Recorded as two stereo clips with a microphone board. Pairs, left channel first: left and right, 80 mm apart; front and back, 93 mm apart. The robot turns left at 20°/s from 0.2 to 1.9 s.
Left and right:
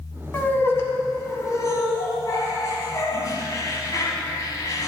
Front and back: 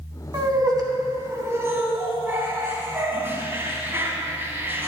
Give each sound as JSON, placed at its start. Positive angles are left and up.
{"t": 0.3, "sound": "laughter", "azimuth_deg": 150, "distance_m": 1.5}